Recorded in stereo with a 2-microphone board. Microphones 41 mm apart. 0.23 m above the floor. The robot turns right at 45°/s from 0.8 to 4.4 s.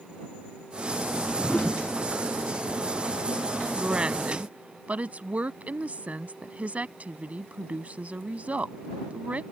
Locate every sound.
1.0 s a whoosh: 115° left; by 1.9 s 155° left
3.8 s a woman speaking: 15° right (ahead or behind); by 9.4 s 35° right (ahead or behind)